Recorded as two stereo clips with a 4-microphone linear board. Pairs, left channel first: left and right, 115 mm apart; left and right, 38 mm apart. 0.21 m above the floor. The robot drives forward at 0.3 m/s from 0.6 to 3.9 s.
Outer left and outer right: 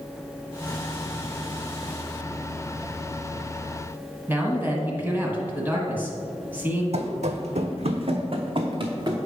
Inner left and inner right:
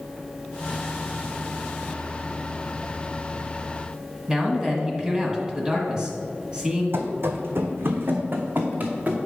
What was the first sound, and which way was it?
A man speaking, 15° right (ahead or behind).